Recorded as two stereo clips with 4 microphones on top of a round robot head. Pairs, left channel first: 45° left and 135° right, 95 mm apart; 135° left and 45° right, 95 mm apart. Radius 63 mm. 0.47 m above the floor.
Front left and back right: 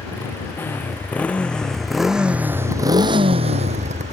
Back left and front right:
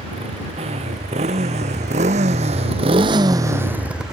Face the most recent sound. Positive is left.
turn(degrees=-130)